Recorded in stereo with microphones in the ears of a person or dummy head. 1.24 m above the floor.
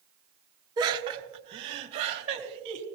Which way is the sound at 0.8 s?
20° right (ahead or behind).